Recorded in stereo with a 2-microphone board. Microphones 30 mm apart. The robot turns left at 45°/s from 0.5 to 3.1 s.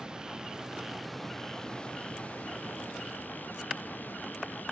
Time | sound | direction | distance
0.0 | running water | 155° right | ?